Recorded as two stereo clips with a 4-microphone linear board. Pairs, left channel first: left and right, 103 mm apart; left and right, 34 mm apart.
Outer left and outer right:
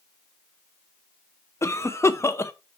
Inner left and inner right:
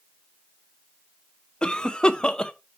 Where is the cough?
25° left (ahead or behind), 0.5 m.